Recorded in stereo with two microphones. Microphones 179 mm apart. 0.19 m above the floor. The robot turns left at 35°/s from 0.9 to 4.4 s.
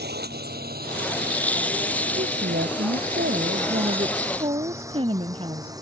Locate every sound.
0.0 s a drone: 65° right (ahead or behind); by 5.8 s 20° right (ahead or behind)
2.2 s a woman speaking: 70° right; by 5.7 s 150° right